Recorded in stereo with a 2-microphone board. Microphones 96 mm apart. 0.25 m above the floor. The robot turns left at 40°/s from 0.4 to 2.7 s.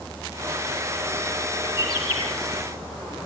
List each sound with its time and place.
1.6 s a bird: 50° left (ahead or behind), 5.5 m; by 2.3 s 70° left (ahead or behind), 5.5 m